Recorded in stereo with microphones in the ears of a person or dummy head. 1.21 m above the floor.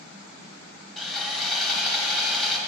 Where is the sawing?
Centre (ahead or behind), 0.9 m.